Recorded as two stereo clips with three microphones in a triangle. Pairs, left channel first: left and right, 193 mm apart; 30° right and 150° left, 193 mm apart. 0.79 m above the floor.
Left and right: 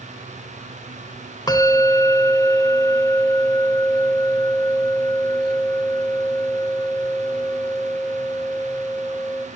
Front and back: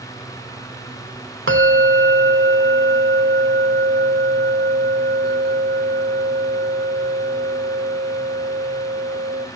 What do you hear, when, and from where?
1.5 s a bell: 160° left, 2 m